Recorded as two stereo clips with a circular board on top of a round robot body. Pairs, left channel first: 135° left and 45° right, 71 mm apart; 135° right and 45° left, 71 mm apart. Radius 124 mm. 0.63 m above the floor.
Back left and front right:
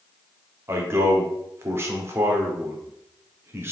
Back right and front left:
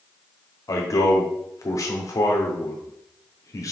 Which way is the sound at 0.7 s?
100° right.